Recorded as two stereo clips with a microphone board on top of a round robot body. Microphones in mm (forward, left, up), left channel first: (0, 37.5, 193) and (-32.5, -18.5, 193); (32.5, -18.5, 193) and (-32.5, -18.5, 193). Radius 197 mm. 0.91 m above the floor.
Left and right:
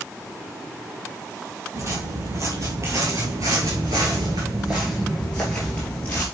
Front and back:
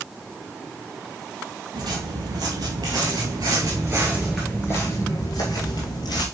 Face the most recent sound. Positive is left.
turn(degrees=-5)